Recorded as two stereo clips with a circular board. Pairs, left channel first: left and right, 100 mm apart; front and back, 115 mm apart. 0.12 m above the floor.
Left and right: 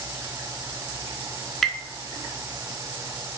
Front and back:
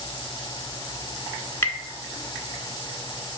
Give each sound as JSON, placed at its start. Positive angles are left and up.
{"t": 1.6, "sound": "tapping", "azimuth_deg": 10, "distance_m": 1.1}